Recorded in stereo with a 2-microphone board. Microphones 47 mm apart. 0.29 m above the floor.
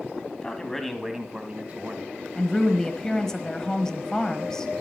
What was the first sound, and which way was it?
A man speaking, 20° left (ahead or behind).